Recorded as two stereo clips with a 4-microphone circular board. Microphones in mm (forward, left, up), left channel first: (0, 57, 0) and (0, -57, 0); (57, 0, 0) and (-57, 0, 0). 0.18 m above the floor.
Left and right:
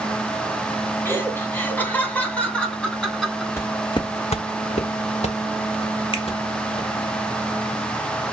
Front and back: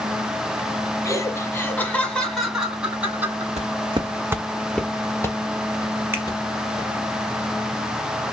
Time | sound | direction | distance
1.1 | laughter | 35° left | 1.5 m
3.6 | footsteps | 160° left | 0.6 m
6.1 | a finger snap | 115° left | 2.0 m